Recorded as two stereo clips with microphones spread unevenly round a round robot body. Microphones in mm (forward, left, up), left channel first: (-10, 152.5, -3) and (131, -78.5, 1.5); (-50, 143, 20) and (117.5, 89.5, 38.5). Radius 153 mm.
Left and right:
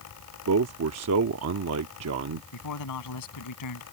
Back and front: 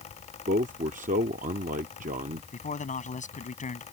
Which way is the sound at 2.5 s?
115° left.